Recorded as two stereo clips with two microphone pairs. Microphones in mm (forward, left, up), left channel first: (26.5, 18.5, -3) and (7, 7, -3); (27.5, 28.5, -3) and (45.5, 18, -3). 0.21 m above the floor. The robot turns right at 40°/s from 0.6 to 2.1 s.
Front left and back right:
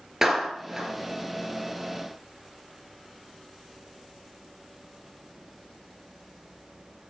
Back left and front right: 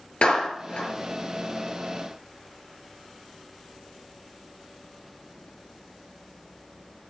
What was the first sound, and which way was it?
A clap, 140° left.